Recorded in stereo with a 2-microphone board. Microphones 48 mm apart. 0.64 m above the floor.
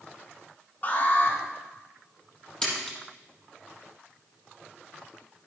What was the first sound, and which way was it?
An alarm, 35° left (ahead or behind).